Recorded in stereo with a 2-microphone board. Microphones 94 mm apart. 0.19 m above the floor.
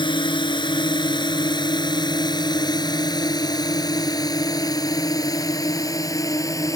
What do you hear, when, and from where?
0.0 s a drone: 55° left (ahead or behind); by 6.8 s 35° left (ahead or behind)